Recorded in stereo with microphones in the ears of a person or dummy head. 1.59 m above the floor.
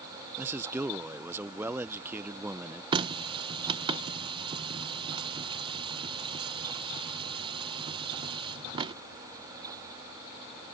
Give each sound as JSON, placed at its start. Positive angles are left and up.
{"t": 0.4, "sound": "a man speaking", "side_deg": -10}
{"t": 2.9, "sound": "a running tap", "side_deg": -25}